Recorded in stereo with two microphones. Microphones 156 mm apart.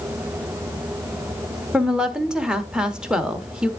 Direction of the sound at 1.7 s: 5° right (ahead or behind).